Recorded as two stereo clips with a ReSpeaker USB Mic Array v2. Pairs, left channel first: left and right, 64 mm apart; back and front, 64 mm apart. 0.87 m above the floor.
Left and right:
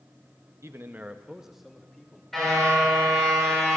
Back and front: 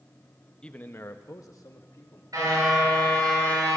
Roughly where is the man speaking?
Right.